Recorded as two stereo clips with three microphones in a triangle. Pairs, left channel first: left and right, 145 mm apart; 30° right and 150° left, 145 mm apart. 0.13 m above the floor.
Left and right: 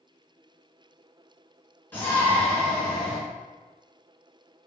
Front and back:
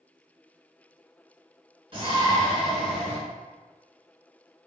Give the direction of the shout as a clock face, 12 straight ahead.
7 o'clock.